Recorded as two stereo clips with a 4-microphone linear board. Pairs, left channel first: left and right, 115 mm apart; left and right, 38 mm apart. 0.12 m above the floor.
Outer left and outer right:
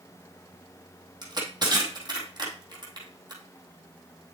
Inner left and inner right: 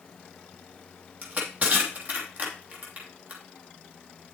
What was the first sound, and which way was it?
Crushing, 40° right (ahead or behind).